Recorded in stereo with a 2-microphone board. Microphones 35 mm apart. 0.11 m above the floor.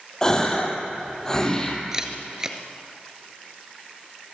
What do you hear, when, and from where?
0.2 s a gasp: 15° left (ahead or behind), 3 m
1.9 s a camera shutter: 20° right (ahead or behind), 1.9 m